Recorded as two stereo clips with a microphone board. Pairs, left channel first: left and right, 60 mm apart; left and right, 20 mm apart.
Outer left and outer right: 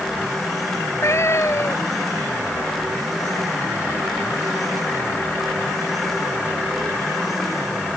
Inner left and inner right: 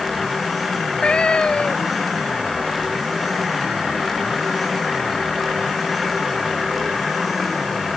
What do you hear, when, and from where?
0.7 s a cat meowing: 55° left (ahead or behind)